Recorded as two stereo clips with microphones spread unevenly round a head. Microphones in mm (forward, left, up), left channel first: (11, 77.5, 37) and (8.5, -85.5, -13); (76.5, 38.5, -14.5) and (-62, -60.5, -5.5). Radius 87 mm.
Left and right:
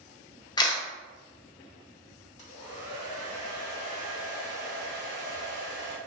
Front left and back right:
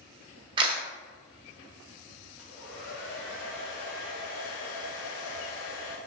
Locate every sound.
0.6 s a camera shutter: 150° left, 0.5 m
2.4 s a hair dryer: 35° left, 1.0 m